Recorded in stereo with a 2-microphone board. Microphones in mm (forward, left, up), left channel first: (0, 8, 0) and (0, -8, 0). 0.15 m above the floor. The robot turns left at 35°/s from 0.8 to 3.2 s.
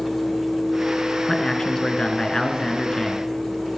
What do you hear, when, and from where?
1.3 s a man speaking: 115° left, 2 m; by 3.3 s 45° left, 2 m